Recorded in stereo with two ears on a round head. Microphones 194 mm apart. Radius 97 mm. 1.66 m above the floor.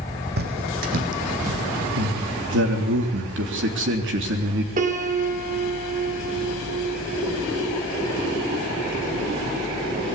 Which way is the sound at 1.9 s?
60° right (ahead or behind).